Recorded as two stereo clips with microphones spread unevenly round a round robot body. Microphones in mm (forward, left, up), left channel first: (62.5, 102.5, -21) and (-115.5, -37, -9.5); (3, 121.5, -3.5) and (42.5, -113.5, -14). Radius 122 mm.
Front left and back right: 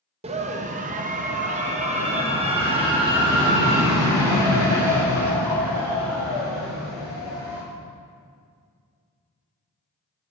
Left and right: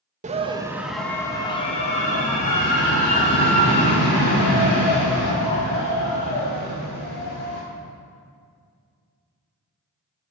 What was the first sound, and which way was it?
A scream, 95° right.